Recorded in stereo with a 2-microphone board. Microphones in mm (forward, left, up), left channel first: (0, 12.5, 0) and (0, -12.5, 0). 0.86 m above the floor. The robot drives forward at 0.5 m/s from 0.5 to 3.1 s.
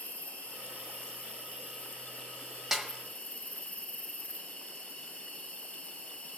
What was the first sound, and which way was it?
An insect, 60° left (ahead or behind).